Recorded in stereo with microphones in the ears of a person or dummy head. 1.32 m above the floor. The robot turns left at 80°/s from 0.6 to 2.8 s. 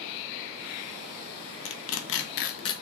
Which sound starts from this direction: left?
Tearing paper, at 1.6 s.